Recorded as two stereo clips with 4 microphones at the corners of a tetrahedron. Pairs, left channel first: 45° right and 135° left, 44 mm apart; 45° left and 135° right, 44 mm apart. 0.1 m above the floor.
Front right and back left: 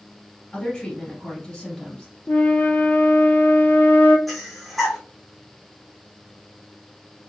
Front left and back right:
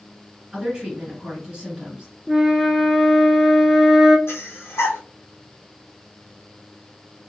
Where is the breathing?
45° left, 0.9 m.